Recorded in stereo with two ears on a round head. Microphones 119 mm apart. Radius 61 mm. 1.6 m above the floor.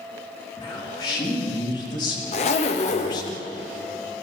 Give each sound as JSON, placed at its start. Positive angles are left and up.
{"t": 0.6, "sound": "a man speaking", "side_deg": 30, "distance_m": 3.5}
{"t": 2.3, "sound": "a zipper", "side_deg": 50, "distance_m": 1.0}